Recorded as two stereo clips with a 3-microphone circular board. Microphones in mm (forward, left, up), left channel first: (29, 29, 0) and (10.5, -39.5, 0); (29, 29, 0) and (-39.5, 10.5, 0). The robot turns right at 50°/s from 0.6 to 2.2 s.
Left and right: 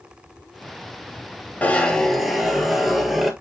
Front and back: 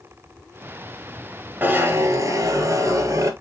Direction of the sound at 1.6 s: 135° left.